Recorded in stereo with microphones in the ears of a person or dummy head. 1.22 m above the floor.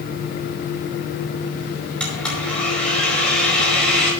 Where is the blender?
5° left (ahead or behind), 5 m.